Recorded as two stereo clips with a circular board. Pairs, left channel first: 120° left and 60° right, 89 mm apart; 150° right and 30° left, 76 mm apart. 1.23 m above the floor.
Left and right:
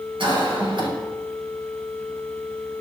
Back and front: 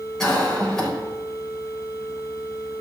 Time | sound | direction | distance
0.2 | a cough | 70° right | 6.5 m